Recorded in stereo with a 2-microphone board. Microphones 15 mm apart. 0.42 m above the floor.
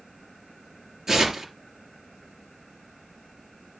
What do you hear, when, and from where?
1.1 s tearing paper: 30° right (ahead or behind), 3 m